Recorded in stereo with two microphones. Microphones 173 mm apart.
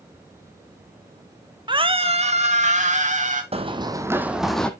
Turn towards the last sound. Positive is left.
turn(degrees=5)  # may be behind; listen again after turning